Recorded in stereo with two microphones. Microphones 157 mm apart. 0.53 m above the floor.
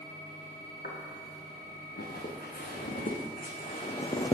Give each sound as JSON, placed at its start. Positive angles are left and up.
{"t": 0.8, "sound": "footsteps", "side_deg": 85, "distance_m": 4.0}